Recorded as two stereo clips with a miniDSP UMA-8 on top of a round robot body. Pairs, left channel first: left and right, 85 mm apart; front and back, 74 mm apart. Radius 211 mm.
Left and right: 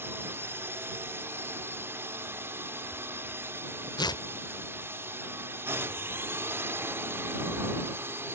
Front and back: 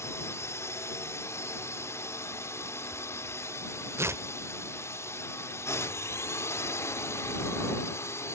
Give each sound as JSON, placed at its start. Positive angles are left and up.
{"t": 0.0, "sound": "a drone", "azimuth_deg": -35}
{"t": 4.0, "sound": "tearing paper", "azimuth_deg": 125}